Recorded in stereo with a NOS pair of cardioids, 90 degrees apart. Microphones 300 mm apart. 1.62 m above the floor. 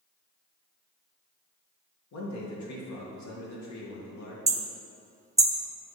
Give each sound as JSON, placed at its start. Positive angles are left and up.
{"t": 2.1, "sound": "a man speaking", "azimuth_deg": 65, "distance_m": 2.0}
{"t": 4.5, "sound": "hammering", "azimuth_deg": -10, "distance_m": 0.8}